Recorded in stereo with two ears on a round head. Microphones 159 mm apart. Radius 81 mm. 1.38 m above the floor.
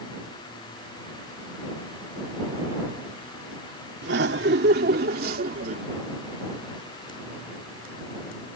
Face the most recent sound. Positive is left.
turn(degrees=-45)  # may be behind; listen again after turning